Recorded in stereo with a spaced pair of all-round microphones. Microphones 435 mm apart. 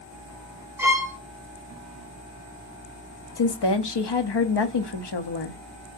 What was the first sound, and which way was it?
A violin, 5° right (ahead or behind).